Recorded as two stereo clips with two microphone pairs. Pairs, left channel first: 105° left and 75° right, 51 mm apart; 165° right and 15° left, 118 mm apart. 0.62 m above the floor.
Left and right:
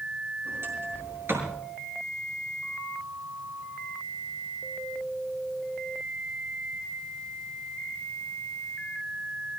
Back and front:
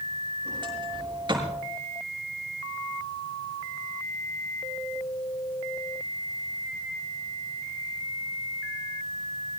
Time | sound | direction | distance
0.5 | a sliding door | 35° right | 6.5 m